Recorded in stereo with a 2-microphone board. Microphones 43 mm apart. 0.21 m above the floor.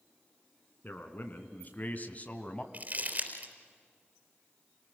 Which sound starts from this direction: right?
Crumpling, at 2.7 s.